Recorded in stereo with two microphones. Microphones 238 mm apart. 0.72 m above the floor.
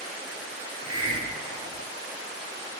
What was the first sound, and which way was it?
A hiss, 20° right (ahead or behind).